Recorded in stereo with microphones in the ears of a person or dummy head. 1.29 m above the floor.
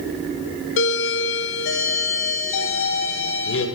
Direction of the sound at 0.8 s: 55° left (ahead or behind).